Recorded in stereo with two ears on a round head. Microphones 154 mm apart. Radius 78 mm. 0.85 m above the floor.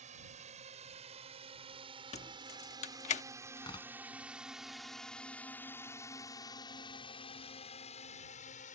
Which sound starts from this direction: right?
A drone, at 0.0 s.